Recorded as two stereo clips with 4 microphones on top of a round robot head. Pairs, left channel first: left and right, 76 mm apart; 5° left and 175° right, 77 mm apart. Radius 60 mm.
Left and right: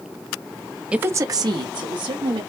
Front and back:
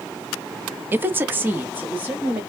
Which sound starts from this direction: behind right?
A woman speaking, at 0.9 s.